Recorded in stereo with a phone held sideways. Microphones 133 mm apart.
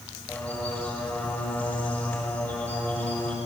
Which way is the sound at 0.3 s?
15° left (ahead or behind).